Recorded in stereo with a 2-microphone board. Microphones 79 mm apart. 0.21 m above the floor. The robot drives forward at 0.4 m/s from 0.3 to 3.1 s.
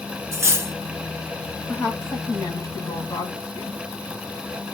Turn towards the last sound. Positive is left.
turn(degrees=35)  # may be behind; listen again after turning